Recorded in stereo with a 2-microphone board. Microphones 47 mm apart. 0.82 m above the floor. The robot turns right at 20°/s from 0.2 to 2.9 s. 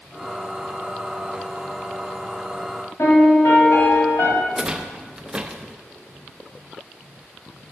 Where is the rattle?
20° right (ahead or behind), 0.6 m.